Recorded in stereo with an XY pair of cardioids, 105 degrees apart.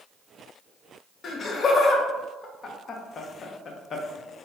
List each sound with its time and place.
1.2 s laughter: 50° left, 0.5 m